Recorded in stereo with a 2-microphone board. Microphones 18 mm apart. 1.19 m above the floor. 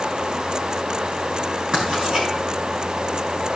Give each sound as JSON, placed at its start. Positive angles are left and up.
{"t": 1.7, "sound": "writing", "side_deg": -45, "distance_m": 6.0}